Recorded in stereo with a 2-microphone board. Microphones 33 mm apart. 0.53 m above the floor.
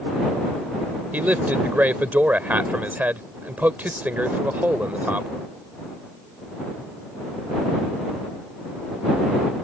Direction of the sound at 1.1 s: 65° right (ahead or behind).